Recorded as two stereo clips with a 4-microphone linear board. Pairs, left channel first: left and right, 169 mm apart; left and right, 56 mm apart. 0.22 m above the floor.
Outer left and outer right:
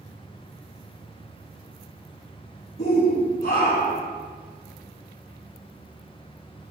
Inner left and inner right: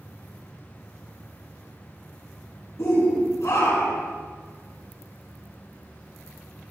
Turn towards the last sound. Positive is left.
turn(degrees=75)  # may be behind; listen again after turning